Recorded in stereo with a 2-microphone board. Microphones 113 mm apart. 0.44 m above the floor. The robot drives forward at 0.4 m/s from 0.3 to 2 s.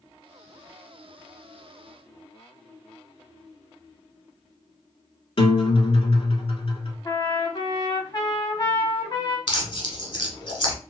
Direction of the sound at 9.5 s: 55° left (ahead or behind).